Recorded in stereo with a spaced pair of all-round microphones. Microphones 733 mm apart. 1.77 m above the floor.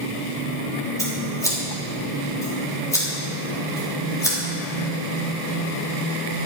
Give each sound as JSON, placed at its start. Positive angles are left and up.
{"t": 1.0, "sound": "scissors", "side_deg": 5, "distance_m": 3.5}